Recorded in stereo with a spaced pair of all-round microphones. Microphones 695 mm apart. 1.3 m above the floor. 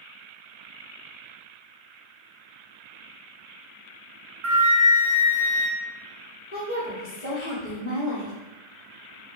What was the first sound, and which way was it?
A flute, 45° right (ahead or behind).